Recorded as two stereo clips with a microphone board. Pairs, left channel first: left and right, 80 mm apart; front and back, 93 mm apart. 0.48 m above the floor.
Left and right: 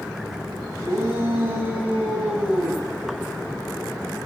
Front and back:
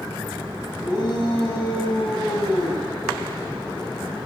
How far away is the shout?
About 4 m.